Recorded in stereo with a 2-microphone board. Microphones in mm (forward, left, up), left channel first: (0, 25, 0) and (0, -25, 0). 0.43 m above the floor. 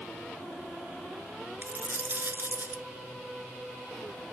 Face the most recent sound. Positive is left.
turn(degrees=-50)  # may be behind; listen again after turning